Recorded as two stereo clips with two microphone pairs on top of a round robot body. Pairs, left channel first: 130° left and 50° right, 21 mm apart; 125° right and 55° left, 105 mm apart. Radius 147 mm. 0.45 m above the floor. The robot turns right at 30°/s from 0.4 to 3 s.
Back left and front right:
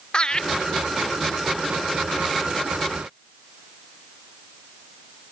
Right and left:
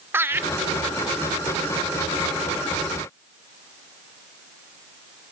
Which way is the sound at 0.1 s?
120° left.